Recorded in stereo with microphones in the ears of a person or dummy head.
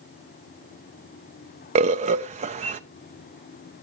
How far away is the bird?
About 0.6 m.